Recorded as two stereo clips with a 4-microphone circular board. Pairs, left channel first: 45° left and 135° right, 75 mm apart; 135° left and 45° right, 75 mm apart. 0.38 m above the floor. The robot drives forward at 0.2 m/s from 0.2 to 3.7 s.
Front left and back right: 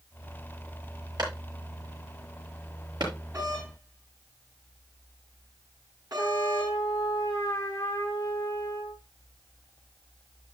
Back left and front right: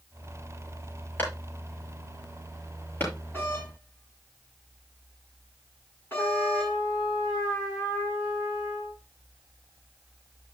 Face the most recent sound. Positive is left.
turn(degrees=95)